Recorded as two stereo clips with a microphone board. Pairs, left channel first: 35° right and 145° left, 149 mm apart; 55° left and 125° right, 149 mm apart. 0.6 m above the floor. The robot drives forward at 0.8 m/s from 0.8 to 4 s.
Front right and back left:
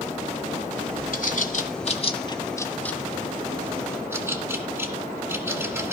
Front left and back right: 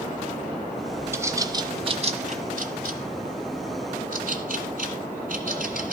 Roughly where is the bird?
Ahead right.